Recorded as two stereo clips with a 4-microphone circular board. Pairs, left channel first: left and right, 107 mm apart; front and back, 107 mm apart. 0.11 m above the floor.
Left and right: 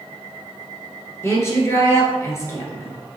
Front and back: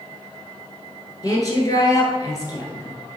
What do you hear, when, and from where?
1.2 s a woman speaking: 40° left, 1.5 m